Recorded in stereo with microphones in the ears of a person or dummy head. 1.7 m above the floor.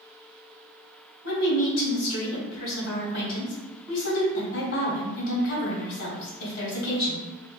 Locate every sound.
1.2 s a woman speaking: 65° left (ahead or behind), 1.9 m